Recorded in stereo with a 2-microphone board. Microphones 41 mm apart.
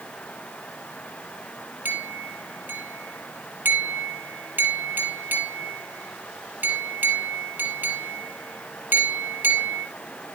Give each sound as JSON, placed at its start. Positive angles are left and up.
{"t": 1.9, "sound": "a clink", "side_deg": -55, "distance_m": 3.5}